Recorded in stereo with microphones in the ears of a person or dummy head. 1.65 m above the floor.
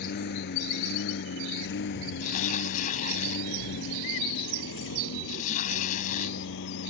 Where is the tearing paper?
50° left (ahead or behind).